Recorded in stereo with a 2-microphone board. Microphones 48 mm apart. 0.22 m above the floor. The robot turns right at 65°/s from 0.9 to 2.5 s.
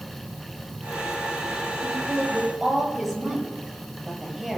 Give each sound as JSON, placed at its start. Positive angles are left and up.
{"t": 1.8, "sound": "a woman speaking", "azimuth_deg": -40, "distance_m": 6.0}